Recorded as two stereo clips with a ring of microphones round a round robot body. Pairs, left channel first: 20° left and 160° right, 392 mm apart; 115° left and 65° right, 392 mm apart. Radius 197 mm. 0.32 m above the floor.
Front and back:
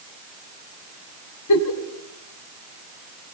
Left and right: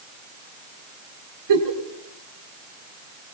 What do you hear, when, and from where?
1.5 s a giggle: 25° right, 3 m